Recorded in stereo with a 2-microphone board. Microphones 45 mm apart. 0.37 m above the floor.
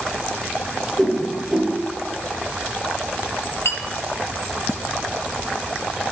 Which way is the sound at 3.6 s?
60° left (ahead or behind).